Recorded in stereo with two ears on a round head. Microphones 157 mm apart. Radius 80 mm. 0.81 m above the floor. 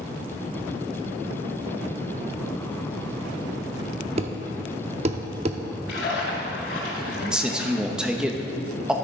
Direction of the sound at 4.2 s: 35° right (ahead or behind).